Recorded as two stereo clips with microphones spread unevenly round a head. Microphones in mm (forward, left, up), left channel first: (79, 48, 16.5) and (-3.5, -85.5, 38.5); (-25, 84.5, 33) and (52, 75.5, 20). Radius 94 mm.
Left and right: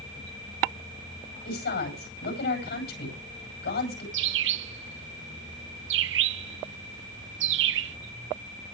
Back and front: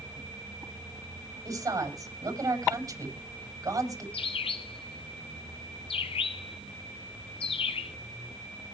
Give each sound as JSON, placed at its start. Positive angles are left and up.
{"t": 1.4, "sound": "a woman speaking", "azimuth_deg": 40, "distance_m": 9.0}
{"t": 4.1, "sound": "a bird", "azimuth_deg": -150, "distance_m": 0.6}